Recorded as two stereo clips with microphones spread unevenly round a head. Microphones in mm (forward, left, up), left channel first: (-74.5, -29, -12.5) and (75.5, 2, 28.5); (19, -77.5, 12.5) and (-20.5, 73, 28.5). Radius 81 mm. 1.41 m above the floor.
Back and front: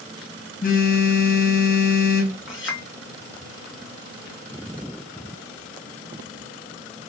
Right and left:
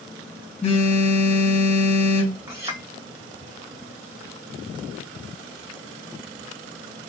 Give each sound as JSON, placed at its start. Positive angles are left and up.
{"t": 0.6, "sound": "a phone buzzing", "azimuth_deg": -130, "distance_m": 2.5}
{"t": 2.5, "sound": "a clink", "azimuth_deg": 175, "distance_m": 1.7}